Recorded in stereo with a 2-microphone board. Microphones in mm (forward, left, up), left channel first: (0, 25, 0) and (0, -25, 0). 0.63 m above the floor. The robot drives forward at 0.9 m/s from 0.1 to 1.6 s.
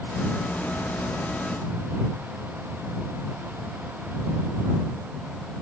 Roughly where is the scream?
No scream in this recording.